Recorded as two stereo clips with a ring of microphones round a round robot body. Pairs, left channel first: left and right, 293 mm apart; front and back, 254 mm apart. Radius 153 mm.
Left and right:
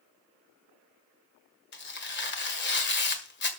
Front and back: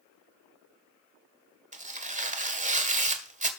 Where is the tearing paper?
130° left, 1.7 m.